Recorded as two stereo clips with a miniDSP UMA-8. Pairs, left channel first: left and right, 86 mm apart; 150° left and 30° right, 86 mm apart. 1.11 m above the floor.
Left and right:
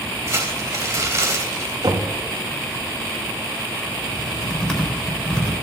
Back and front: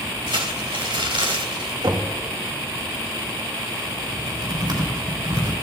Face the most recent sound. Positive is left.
turn(degrees=5)